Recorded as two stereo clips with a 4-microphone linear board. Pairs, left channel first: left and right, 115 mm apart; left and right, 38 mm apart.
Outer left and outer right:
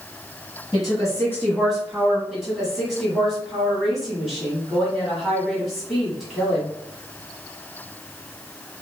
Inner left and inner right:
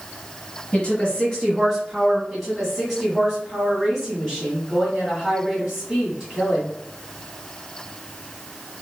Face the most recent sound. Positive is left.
turn(degrees=0)  # may be behind; listen again after turning